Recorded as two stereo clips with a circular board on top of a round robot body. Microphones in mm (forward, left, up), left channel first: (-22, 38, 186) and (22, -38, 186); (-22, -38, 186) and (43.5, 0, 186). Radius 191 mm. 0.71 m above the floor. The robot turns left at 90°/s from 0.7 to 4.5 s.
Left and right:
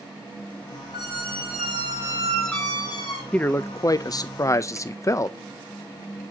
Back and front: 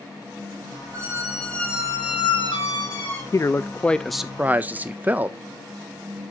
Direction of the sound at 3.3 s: 170° right.